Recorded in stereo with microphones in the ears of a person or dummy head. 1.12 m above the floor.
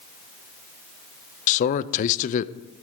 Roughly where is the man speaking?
Left.